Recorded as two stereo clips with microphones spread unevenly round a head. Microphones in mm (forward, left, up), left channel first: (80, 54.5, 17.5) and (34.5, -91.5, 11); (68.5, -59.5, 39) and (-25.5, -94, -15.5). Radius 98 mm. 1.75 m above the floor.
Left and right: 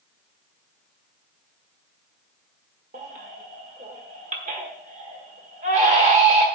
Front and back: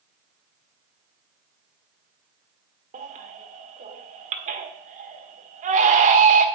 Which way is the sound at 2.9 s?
160° right.